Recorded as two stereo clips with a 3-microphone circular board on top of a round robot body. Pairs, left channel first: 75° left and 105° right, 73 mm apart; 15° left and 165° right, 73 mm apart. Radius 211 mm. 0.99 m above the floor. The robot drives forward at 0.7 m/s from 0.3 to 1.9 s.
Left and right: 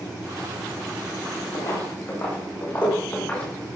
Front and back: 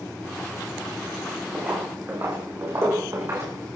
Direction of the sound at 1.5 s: 125° left.